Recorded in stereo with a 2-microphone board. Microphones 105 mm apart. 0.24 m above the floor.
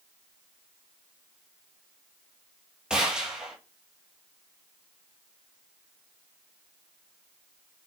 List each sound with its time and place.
2.9 s a gunshot: 5° right (ahead or behind), 2.5 m